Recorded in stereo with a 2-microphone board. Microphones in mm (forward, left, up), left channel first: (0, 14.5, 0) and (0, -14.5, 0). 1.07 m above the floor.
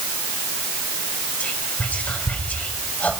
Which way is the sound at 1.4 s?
75° left (ahead or behind).